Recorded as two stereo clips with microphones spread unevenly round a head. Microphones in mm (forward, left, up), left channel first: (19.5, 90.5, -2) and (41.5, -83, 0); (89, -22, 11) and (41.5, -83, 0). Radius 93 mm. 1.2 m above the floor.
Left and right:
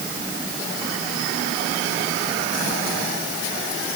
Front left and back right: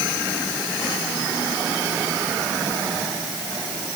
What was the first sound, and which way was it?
Only background noise.